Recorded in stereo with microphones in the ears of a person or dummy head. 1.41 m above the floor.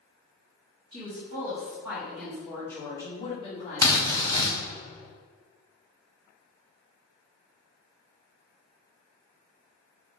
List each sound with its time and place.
0.9 s a woman speaking: 25° right (ahead or behind), 1.7 m; by 4.5 s 50° left (ahead or behind), 1.6 m
3.8 s a drill: 15° left (ahead or behind), 0.6 m